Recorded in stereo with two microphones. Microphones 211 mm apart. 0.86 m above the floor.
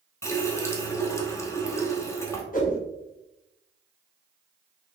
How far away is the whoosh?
About 1.3 m.